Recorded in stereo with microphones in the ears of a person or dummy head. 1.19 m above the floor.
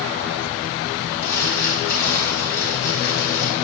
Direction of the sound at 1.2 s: 65° left (ahead or behind).